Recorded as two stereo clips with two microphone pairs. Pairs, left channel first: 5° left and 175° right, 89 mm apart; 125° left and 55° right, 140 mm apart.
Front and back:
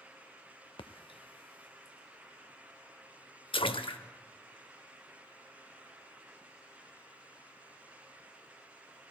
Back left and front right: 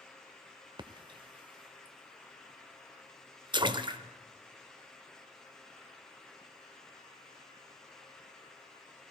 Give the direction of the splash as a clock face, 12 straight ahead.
12 o'clock.